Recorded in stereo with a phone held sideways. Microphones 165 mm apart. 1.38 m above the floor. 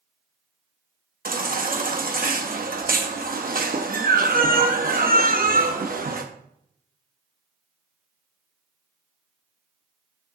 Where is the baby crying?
60° right (ahead or behind), 1.1 m.